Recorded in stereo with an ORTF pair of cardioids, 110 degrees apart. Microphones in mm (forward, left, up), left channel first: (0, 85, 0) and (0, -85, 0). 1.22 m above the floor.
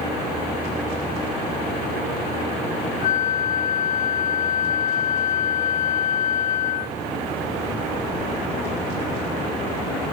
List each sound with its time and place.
3.0 s a flute: 50° left, 0.8 m